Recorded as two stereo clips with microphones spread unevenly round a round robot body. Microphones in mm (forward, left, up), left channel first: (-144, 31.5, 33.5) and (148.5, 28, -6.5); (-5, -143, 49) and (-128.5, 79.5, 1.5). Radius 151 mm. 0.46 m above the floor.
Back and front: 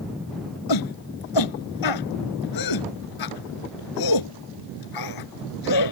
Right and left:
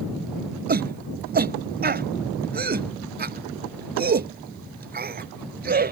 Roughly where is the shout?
Behind.